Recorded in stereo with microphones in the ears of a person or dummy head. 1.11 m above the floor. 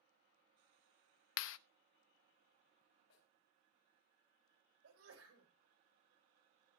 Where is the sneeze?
80° right, 4.5 m.